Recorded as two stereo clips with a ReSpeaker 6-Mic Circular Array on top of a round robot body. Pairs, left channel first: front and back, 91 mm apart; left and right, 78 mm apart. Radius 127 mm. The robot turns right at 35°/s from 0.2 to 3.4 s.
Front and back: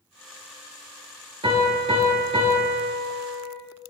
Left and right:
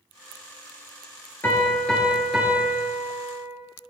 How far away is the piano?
About 3 m.